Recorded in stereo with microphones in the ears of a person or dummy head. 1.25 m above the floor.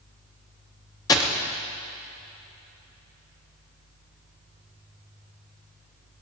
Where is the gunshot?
20° left (ahead or behind), 0.8 m.